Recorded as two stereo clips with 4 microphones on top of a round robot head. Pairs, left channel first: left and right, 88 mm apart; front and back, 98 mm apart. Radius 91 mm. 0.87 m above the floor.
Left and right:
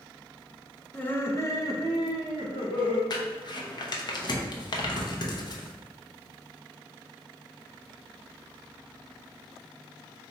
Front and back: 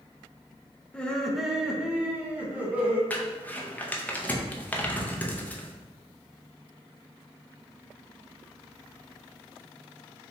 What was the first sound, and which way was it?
Laughter, 55° left.